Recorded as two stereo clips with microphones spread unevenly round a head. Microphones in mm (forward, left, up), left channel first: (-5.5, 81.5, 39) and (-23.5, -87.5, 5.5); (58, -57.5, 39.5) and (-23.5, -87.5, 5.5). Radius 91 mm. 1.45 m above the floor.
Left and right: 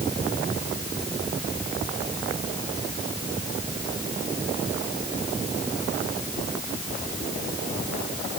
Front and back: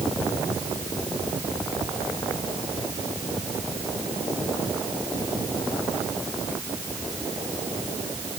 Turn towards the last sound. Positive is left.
No sound to turn to.